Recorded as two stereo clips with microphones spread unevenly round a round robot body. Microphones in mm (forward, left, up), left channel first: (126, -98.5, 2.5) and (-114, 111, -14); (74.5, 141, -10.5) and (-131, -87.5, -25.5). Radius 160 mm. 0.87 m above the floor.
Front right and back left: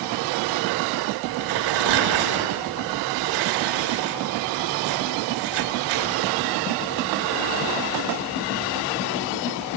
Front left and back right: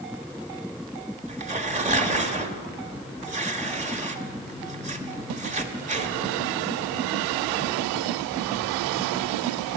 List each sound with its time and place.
1.3 s tearing paper: 160° left, 1.3 m